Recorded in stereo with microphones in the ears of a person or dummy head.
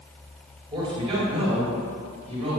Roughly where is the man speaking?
Right.